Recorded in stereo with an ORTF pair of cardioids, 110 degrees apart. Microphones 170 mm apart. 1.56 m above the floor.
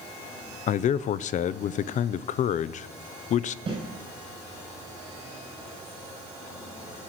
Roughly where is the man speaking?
Ahead left.